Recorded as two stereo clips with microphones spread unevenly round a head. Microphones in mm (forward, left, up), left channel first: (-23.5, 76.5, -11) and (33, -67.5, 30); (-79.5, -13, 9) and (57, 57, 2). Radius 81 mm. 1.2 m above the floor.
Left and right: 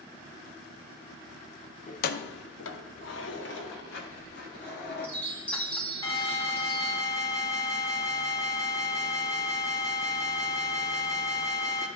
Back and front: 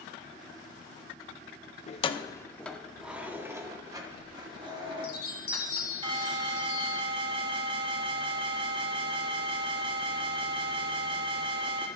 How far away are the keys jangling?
About 0.6 m.